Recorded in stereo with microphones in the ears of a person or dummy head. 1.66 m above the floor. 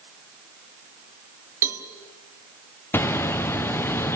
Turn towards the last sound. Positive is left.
turn(degrees=10)  # may be behind; listen again after turning